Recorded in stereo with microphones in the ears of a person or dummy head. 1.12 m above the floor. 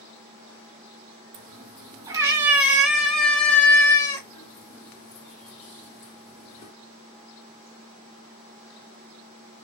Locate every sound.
1.3 s a cat meowing: 30° right (ahead or behind), 1.7 m; by 6.7 s 50° left (ahead or behind), 2.5 m